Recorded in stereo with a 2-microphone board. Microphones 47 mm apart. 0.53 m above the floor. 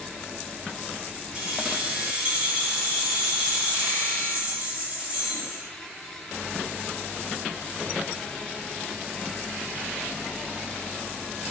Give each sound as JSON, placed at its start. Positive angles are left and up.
{"t": 1.3, "sound": "keys jangling", "side_deg": -25, "distance_m": 1.7}